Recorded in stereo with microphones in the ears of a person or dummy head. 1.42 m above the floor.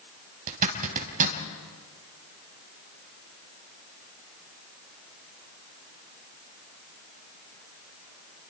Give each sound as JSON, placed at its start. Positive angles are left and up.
{"t": 0.5, "sound": "a zipper", "side_deg": -45, "distance_m": 3.0}